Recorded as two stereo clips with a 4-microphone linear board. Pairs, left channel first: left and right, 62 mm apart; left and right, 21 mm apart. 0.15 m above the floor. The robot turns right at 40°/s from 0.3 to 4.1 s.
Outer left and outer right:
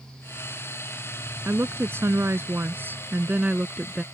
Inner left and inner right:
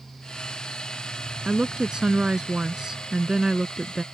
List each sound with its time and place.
1.4 s a woman speaking: 115° right; by 4.0 s 10° right